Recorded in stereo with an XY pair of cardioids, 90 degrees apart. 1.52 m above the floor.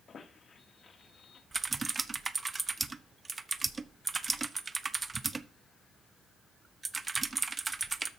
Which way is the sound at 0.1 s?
50° left.